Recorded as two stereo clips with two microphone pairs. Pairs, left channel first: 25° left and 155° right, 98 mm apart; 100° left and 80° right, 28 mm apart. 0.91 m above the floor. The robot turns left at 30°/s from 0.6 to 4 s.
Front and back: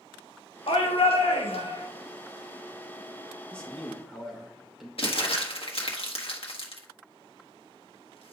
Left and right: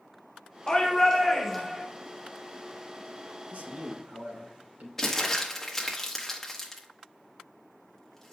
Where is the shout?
40° left, 1.4 m; by 1.8 s straight ahead, 1.4 m.